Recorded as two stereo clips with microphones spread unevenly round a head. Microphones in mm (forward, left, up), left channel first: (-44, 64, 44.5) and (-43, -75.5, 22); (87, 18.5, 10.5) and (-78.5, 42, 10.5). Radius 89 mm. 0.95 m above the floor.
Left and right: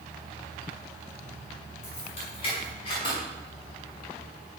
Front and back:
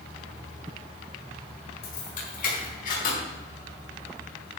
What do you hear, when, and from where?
1.8 s keys jangling: 35° left, 6 m; by 3.2 s 25° left, 4.5 m